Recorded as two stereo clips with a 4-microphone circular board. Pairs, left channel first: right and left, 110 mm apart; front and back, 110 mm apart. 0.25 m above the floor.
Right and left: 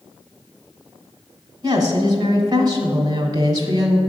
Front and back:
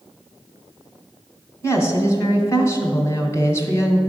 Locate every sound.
1.6 s a woman speaking: 55° left, 1.5 m